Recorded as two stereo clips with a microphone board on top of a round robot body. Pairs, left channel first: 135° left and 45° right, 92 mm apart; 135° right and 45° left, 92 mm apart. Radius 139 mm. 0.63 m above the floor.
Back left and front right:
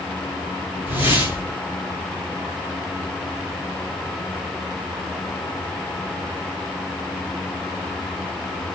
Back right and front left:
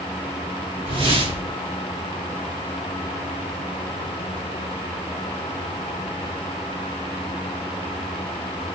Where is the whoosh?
25° left, 1.9 m.